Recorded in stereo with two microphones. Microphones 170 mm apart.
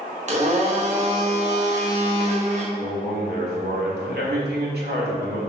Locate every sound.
0.3 s a blender: 40° right (ahead or behind), 1.5 m
2.8 s a man speaking: 75° right (ahead or behind), 2.5 m